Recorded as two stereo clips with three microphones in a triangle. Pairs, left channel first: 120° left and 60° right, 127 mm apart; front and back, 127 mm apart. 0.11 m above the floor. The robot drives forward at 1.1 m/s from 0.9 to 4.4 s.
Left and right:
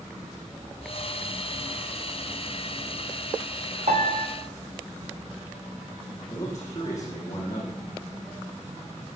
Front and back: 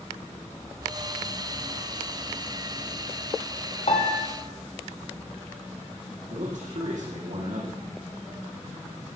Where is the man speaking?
175° right, 5.5 m.